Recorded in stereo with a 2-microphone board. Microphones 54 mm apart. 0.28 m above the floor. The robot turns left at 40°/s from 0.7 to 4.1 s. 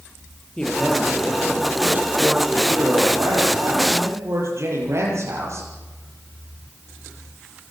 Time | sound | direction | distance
0.6 | a man speaking | 20° left | 8 m